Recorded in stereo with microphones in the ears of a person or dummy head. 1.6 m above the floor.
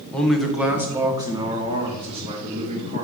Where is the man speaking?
10° left (ahead or behind), 0.8 m; by 3.0 s 30° right (ahead or behind), 2.0 m.